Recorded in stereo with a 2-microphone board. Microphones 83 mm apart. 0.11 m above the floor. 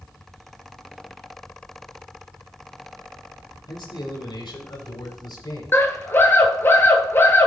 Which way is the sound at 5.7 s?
30° left (ahead or behind).